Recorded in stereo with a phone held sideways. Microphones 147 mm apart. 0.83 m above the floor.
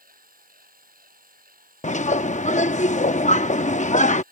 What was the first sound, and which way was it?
A machine running, 80° right.